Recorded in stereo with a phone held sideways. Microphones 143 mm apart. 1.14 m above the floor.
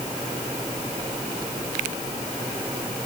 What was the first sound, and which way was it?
Only background noise.